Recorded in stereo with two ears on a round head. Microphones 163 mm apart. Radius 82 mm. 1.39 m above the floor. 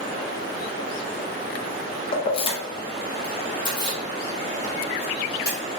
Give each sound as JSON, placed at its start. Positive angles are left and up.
{"t": 2.1, "sound": "keys jangling", "side_deg": 30, "distance_m": 0.5}